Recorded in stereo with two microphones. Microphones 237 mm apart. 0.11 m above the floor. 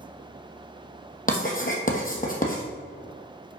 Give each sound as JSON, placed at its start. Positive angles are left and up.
{"t": 1.3, "sound": "writing", "side_deg": 35, "distance_m": 1.5}